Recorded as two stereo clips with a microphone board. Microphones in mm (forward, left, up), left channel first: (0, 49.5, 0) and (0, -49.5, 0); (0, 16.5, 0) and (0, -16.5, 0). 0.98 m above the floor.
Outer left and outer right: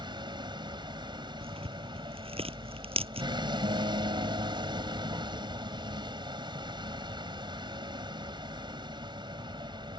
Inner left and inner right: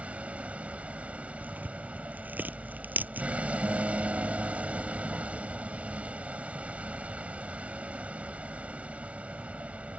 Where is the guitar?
70° right (ahead or behind).